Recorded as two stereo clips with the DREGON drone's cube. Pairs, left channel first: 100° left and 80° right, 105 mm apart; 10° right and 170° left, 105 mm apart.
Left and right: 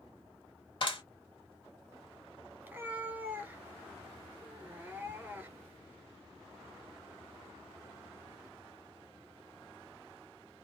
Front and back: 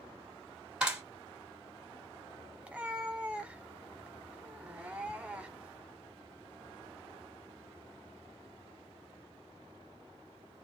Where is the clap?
90° left, 2.0 m.